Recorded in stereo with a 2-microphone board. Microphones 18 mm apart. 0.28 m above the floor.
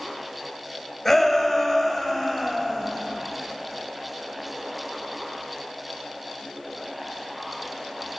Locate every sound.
1.1 s a shout: 10° left (ahead or behind), 1.7 m; by 2.9 s centre (ahead or behind), 1.9 m